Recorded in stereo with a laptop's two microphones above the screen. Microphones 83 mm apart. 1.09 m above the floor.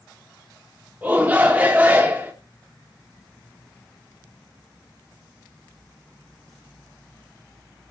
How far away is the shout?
About 1.5 m.